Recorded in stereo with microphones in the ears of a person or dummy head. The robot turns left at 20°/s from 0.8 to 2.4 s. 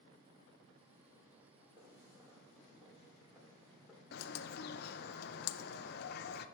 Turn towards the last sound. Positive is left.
turn(degrees=45)  # may be behind; listen again after turning